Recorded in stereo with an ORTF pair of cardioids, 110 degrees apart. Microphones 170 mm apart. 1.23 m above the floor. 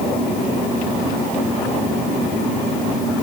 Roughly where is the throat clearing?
I don't hear throat clearing.